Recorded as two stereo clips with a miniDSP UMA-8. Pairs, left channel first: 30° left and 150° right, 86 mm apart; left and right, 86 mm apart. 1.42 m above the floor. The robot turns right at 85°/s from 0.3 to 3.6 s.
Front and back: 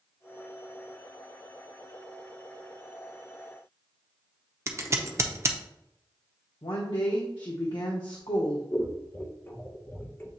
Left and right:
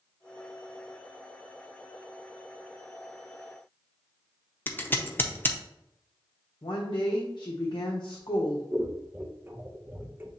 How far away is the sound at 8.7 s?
About 0.6 m.